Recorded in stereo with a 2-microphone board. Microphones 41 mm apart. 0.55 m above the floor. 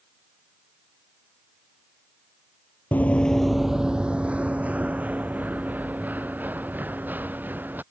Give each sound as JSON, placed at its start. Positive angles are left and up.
{"t": 2.9, "sound": "running footsteps", "side_deg": 45}